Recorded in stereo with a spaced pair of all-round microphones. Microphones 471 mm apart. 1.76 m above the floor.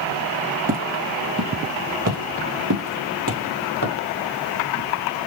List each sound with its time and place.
0.7 s footsteps: 15° right (ahead or behind), 2 m; by 3.9 s 45° right (ahead or behind), 2.5 m